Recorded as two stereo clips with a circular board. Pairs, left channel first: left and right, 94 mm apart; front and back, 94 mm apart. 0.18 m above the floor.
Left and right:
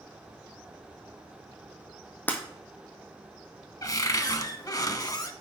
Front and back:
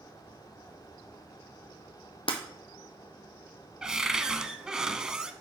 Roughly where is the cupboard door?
Left.